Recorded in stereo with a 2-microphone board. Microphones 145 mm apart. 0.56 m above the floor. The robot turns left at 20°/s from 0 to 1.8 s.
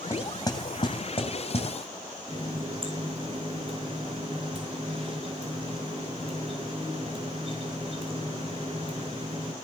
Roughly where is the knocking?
Left.